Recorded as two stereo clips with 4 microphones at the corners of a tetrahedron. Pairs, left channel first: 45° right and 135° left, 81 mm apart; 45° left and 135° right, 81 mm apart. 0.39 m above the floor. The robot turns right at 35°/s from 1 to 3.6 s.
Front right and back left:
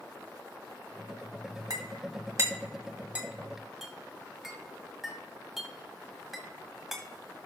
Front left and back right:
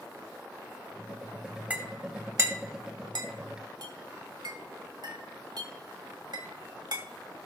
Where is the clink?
155° left, 1.8 m; by 7.5 s 140° right, 1.8 m.